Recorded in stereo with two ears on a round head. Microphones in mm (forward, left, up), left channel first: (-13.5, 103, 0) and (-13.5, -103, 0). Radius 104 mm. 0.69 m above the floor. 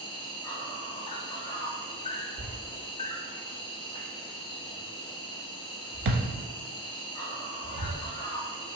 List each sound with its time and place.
0.0 s an insect: 20° left (ahead or behind), 0.7 m
2.4 s a thud: 45° right (ahead or behind), 0.6 m